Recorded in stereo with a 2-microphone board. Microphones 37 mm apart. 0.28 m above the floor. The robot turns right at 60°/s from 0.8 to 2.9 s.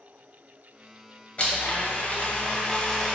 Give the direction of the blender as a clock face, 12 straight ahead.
10 o'clock.